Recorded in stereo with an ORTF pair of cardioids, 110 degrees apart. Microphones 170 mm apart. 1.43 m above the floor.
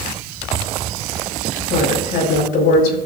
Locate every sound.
1.7 s a woman speaking: 65° left, 5.5 m